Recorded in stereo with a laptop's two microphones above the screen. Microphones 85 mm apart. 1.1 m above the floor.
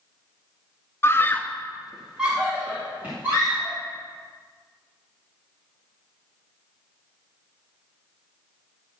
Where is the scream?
30° left (ahead or behind), 0.6 m; by 3.8 s 20° right (ahead or behind), 2.5 m.